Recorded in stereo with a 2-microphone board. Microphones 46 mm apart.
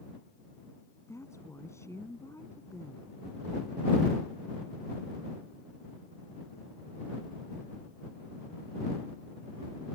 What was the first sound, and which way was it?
A woman speaking, 85° left.